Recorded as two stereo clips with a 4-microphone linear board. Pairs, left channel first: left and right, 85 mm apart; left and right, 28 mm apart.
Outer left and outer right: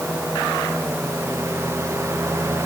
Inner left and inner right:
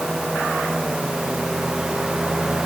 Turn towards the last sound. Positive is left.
No sound to turn to.